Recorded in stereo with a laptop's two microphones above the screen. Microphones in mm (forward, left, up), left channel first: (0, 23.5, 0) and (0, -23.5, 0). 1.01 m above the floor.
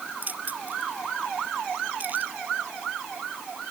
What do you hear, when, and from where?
0.2 s keys jangling: 40° right (ahead or behind)